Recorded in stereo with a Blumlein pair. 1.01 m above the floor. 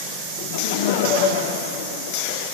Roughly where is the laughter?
Ahead left.